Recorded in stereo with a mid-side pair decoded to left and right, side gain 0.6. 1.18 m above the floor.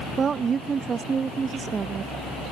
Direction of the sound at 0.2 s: 30° right.